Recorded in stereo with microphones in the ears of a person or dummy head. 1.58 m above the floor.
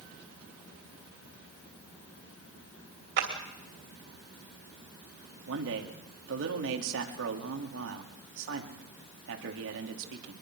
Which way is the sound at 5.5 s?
70° right (ahead or behind).